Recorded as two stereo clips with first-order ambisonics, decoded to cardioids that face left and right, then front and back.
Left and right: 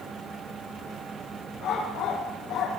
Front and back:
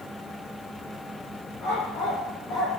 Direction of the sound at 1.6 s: 40° left.